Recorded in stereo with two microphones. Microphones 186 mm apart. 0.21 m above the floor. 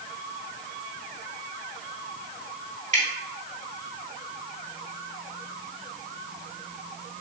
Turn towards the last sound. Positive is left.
turn(degrees=-40)  # may be behind; listen again after turning